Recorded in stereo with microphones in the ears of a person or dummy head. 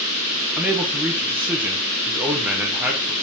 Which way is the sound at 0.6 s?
5° right (ahead or behind).